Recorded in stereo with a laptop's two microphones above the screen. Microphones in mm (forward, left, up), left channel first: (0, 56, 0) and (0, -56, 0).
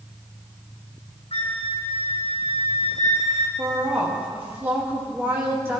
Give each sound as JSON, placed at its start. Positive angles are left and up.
{"t": 1.3, "sound": "a flute", "side_deg": 65, "distance_m": 1.0}
{"t": 3.6, "sound": "a woman speaking", "side_deg": -20, "distance_m": 2.0}